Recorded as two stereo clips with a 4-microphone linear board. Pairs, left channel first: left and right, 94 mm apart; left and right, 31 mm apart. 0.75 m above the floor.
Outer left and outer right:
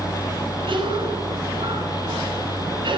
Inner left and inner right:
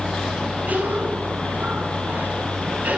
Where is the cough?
60° right (ahead or behind), 8 m.